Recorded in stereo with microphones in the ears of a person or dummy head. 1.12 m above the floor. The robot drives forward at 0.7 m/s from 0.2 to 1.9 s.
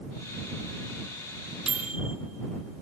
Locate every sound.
1.7 s a microwave: 5° right (ahead or behind), 0.7 m